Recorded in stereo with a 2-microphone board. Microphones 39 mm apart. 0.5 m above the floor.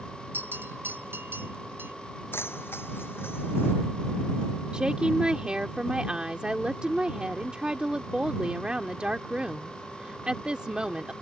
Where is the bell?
75° right (ahead or behind).